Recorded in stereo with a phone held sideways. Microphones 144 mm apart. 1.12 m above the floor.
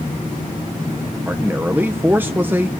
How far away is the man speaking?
About 0.7 m.